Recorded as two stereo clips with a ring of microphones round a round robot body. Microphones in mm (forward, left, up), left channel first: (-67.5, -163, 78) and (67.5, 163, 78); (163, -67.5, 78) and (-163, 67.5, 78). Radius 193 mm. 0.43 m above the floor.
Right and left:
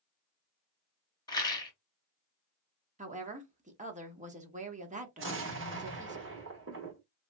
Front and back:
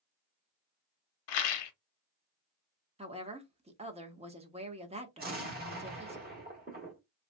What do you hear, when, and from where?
1.3 s a rattle: 35° right, 0.8 m
3.0 s a woman speaking: 105° left, 1.0 m
5.2 s an explosion: 105° left, 1.4 m